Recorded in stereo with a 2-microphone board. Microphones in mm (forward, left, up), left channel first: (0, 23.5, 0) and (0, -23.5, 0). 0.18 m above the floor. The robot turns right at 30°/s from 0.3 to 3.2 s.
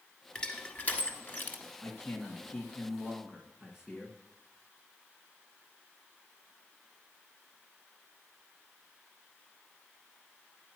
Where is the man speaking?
155° left, 1.7 m; by 4.2 s 165° right, 1.7 m.